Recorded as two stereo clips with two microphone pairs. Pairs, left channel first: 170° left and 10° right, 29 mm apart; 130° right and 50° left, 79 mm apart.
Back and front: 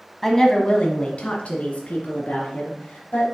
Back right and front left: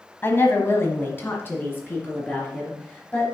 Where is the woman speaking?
115° right, 1.2 m; by 3.2 s 165° left, 3.5 m.